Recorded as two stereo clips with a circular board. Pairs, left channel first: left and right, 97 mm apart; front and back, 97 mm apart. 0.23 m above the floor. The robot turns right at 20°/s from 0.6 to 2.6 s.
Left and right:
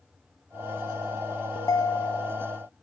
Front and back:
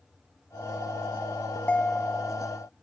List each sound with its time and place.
1.6 s a ringtone: 65° left; by 2.4 s 85° left